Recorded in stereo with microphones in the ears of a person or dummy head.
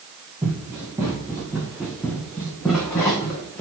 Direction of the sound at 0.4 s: 10° right (ahead or behind).